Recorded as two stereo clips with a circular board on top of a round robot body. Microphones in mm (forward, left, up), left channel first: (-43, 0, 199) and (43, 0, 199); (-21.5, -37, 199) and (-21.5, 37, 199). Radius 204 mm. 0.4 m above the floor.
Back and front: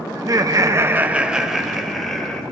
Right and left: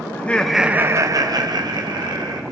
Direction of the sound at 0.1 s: 35° right.